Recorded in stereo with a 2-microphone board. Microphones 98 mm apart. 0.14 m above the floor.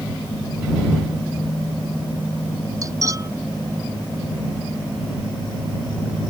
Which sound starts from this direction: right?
Cutlery clinking, at 2.8 s.